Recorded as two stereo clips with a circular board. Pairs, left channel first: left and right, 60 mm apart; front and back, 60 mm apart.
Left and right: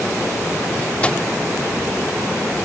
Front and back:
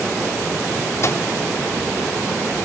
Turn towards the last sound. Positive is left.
turn(degrees=25)